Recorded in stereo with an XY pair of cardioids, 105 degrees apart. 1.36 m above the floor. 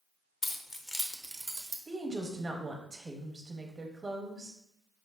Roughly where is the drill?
I don't hear a drill.